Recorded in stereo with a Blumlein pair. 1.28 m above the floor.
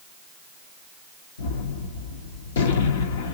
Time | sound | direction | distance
1.4 | a gunshot | 60° left | 1.1 m